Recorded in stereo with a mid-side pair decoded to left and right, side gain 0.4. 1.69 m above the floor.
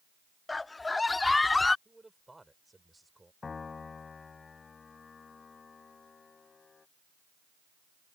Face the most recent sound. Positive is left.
turn(degrees=40)